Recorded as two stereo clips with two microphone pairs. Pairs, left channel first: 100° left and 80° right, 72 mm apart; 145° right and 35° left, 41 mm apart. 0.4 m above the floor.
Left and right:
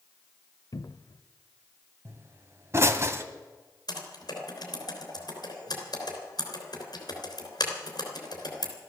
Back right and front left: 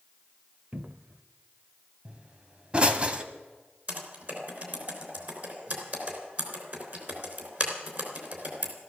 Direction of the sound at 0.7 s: 80° left.